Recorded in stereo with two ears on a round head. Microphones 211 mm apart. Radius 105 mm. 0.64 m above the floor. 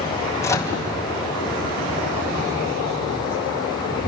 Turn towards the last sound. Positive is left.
turn(degrees=15)  # may be behind; listen again after turning